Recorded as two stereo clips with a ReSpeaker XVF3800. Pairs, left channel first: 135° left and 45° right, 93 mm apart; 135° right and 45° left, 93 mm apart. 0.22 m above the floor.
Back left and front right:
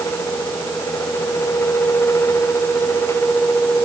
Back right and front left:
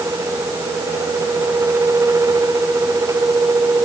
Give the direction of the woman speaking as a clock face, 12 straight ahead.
No woman speaking in this recording.